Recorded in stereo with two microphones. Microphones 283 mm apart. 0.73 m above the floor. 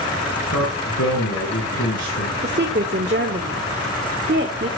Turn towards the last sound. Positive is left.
turn(degrees=-35)  # may be behind; listen again after turning